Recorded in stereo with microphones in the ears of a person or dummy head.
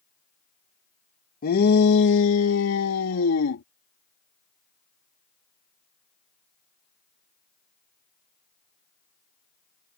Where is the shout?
50° left (ahead or behind); by 3.6 s 90° left.